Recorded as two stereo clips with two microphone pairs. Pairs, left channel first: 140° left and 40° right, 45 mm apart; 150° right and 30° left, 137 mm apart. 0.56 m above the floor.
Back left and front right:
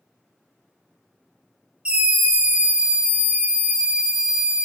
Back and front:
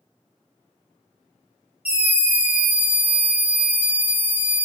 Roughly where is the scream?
Ahead right.